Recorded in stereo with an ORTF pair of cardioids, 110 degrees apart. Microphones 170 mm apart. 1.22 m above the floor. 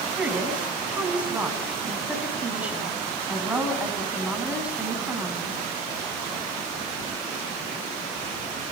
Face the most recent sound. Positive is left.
turn(degrees=-5)